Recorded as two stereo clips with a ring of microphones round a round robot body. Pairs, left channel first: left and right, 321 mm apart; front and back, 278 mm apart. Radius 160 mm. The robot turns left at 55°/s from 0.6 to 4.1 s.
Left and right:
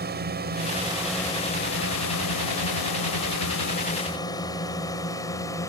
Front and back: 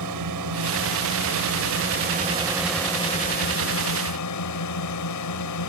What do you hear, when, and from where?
0.0 s a drone: 150° right; by 5.7 s 10° left